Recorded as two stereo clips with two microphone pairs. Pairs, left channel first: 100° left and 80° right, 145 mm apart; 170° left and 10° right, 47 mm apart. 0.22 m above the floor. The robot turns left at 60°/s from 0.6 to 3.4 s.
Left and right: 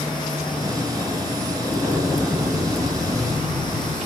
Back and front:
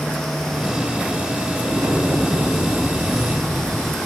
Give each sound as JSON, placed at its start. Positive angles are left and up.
{"t": 1.6, "sound": "an explosion", "azimuth_deg": 20, "distance_m": 2.0}